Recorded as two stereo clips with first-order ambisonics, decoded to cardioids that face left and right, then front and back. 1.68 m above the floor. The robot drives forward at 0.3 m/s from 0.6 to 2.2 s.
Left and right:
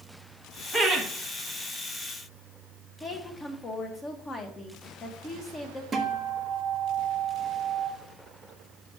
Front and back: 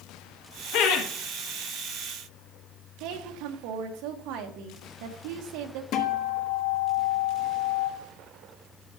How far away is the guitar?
About 1.5 m.